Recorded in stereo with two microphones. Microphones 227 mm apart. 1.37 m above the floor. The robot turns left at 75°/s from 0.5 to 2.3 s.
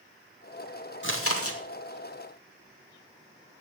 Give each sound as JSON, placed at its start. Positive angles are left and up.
{"t": 1.0, "sound": "chewing", "azimuth_deg": 125, "distance_m": 2.0}